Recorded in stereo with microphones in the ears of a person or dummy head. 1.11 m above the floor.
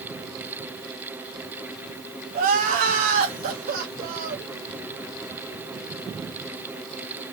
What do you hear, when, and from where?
2.3 s crying: 50° right (ahead or behind), 0.9 m